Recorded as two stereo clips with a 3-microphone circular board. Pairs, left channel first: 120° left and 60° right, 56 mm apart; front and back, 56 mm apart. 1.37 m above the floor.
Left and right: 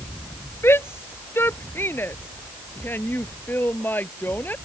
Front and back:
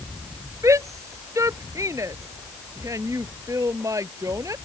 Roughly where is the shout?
Behind.